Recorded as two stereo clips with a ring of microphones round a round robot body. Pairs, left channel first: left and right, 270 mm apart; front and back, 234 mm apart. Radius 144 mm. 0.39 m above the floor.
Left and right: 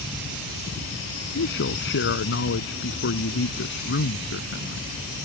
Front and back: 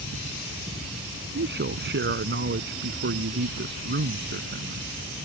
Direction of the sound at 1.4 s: 140° left.